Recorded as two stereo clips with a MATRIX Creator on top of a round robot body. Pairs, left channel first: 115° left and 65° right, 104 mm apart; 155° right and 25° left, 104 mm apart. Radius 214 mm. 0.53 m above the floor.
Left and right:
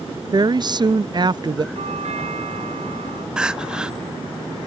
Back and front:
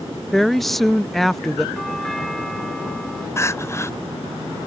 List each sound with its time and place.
0.3 s a woman speaking: 70° right
1.8 s a doorbell: 70° right
3.4 s crying: 140° right